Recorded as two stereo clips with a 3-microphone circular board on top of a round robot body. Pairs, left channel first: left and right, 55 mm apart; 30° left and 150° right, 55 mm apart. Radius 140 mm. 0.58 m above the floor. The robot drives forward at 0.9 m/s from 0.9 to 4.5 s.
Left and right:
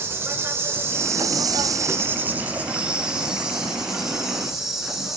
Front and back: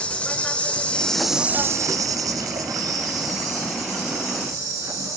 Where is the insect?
40° right, 0.7 m; by 5.2 s 170° right, 2.5 m.